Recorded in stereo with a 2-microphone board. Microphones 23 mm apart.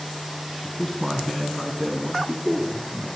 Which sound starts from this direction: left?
A man speaking, at 0.6 s.